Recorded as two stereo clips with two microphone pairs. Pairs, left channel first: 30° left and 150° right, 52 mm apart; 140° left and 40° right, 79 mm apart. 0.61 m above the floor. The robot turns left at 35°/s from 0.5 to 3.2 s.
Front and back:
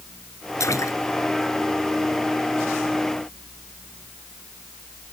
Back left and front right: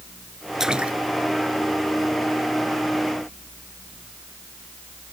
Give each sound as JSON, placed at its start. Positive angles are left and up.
{"t": 0.6, "sound": "a splash", "azimuth_deg": 45}